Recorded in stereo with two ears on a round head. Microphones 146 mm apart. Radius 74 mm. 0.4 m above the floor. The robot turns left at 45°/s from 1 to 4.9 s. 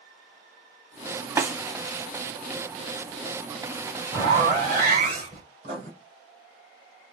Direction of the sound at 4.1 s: 15° right.